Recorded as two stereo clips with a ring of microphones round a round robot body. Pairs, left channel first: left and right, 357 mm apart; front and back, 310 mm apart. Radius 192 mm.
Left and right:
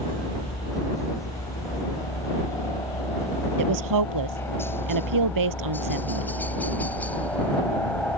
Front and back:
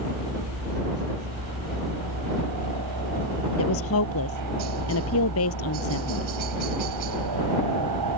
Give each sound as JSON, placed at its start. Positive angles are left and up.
{"t": 0.0, "sound": "a helicopter", "azimuth_deg": 170}
{"t": 3.6, "sound": "a woman speaking", "azimuth_deg": -55}